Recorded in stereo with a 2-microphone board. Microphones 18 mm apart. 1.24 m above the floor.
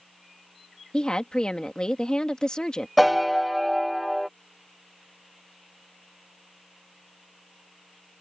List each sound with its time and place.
0.9 s a woman speaking: 45° left (ahead or behind)
3.0 s a piano: centre (ahead or behind)